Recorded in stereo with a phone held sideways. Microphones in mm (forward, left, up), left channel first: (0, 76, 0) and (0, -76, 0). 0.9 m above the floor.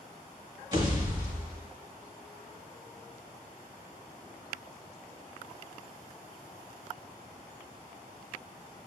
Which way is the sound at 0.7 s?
30° right (ahead or behind).